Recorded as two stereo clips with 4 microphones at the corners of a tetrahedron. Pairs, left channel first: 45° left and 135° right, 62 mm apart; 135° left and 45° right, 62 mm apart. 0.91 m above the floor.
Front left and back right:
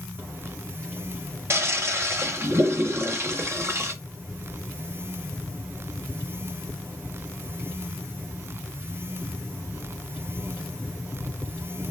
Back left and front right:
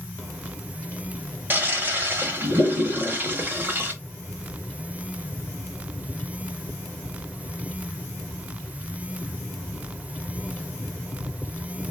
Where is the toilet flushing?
100° right, 1.1 m.